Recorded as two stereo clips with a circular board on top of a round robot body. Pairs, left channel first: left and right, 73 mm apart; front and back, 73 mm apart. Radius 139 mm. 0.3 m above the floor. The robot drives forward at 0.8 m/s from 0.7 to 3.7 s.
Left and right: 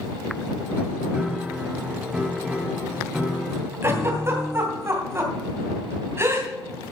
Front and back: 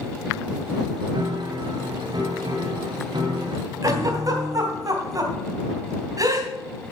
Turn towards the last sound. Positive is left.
turn(degrees=-145)